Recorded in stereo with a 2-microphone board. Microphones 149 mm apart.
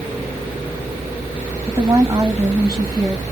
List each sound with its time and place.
1.7 s a woman speaking: 20° right (ahead or behind), 1.8 m